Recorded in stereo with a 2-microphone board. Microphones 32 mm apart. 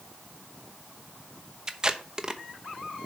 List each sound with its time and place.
1.7 s tape being pulled: 20° right (ahead or behind), 0.7 m